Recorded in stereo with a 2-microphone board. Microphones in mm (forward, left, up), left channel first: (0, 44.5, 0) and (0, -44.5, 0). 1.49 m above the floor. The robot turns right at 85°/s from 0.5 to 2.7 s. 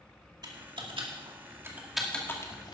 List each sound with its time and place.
0.4 s typing on a keyboard: 50° right (ahead or behind), 2 m; by 2.8 s 55° left (ahead or behind), 2 m